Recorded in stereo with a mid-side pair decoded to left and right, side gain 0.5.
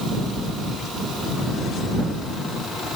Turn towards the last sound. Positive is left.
No sound to turn to.